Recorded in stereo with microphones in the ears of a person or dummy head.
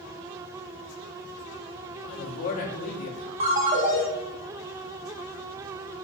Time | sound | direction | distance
2.0 | a man speaking | 50° left (ahead or behind) | 0.8 m
3.4 | a ringtone | 30° right (ahead or behind) | 0.7 m